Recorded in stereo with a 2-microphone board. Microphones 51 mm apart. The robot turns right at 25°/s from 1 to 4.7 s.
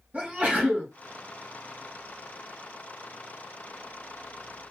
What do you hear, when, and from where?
0.1 s a sneeze: 35° right (ahead or behind), 3 m